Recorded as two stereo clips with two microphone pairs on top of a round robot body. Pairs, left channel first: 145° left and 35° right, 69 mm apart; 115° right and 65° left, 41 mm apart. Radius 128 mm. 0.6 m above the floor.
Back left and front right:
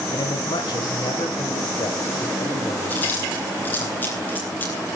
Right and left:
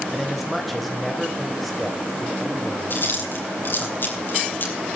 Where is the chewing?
150° right, 5 m.